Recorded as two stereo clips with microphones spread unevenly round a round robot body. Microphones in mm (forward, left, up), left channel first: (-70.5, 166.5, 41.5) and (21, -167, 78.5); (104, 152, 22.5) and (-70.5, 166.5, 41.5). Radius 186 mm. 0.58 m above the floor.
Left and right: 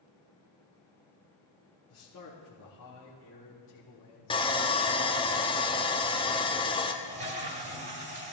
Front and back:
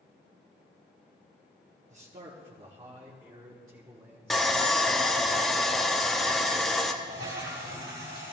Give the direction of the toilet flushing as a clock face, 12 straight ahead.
5 o'clock.